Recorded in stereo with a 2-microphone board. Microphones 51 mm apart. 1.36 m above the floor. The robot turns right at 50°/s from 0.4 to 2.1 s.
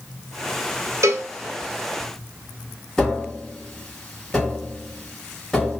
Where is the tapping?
10° left (ahead or behind), 1.5 m.